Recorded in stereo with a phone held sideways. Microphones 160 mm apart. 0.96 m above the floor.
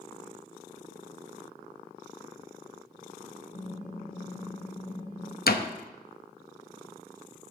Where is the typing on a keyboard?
50° left (ahead or behind), 0.9 m.